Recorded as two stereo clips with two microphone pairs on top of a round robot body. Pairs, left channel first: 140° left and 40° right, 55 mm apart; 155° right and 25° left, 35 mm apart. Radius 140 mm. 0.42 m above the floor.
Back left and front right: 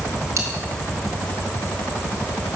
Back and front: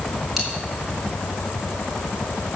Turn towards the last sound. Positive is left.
turn(degrees=-60)